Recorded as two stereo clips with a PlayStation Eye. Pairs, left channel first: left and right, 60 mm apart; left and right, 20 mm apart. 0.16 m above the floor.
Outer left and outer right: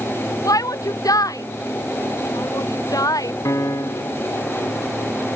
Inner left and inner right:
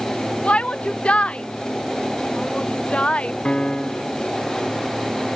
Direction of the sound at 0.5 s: 80° left.